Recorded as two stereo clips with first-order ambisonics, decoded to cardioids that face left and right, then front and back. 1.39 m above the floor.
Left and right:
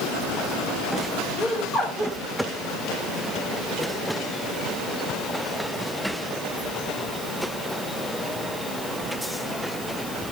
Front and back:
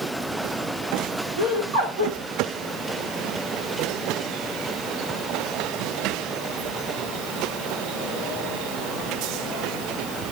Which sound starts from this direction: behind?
Laughter, at 1.4 s.